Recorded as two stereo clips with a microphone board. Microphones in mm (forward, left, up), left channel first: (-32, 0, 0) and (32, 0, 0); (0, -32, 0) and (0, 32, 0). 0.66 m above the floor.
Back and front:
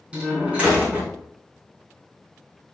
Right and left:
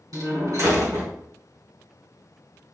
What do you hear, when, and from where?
0.1 s a door slam: 70° left, 4 m